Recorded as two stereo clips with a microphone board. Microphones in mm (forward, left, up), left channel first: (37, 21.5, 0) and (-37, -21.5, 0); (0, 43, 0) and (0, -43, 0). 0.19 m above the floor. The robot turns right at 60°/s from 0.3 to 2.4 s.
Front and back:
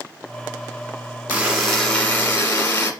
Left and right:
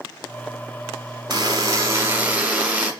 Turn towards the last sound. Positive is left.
turn(degrees=-15)